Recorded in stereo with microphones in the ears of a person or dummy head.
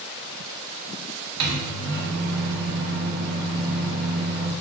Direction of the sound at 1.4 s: 65° right (ahead or behind).